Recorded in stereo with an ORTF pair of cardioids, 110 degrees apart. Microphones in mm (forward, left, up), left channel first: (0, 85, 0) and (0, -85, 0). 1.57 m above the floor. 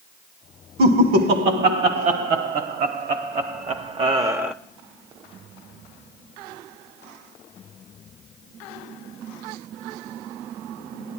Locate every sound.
0.8 s laughter: 70° right, 2 m; by 4.5 s 5° right, 0.6 m